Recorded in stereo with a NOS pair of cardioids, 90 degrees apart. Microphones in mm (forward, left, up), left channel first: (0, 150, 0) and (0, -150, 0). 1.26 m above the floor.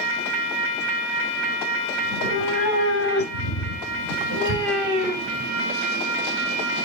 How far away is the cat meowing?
About 4 m.